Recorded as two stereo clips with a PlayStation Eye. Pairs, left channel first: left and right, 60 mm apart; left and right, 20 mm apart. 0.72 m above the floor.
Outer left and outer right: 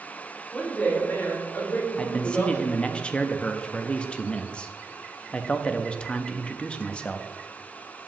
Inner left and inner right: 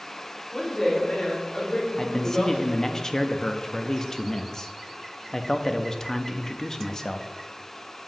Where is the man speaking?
20° left (ahead or behind), 0.5 m.